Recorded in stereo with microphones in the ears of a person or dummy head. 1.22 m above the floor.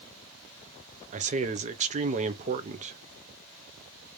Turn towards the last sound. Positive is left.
turn(degrees=-35)  # may be behind; listen again after turning